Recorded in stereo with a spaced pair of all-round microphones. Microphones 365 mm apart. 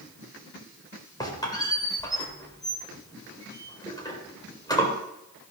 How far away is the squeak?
About 3 m.